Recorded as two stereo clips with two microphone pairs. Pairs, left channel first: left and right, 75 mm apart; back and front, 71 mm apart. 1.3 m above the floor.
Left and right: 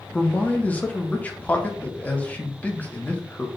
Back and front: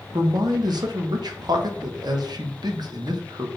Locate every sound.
0.1 s a man speaking: 20° left, 1.0 m